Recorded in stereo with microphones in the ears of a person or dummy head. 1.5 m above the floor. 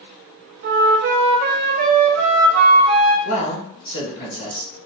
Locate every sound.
0.6 s a flute: 45° right (ahead or behind), 0.5 m
3.2 s a man speaking: 35° left (ahead or behind), 1.6 m